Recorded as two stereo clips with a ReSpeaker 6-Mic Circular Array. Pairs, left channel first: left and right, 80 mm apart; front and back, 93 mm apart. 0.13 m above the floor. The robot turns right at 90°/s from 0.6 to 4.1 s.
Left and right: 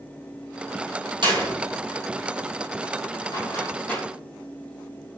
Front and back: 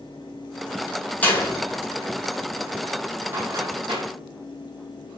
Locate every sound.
1.2 s a door slam: 75° right, 5 m; by 4.0 s straight behind, 5 m